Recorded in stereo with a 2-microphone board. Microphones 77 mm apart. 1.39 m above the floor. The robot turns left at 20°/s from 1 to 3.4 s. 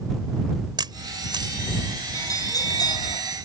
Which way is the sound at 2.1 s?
45° left (ahead or behind).